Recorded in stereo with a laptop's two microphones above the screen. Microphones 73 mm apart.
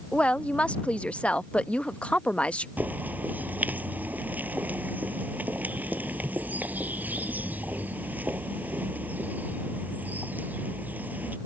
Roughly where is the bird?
Right.